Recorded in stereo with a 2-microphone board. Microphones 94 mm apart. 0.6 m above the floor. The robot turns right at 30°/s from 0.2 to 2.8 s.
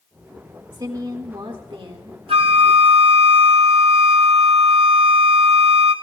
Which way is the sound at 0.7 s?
125° right.